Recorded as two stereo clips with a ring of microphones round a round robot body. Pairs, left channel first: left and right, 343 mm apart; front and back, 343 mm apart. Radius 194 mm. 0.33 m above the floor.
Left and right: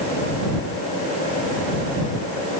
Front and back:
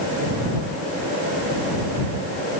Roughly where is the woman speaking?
I don't hear a woman speaking.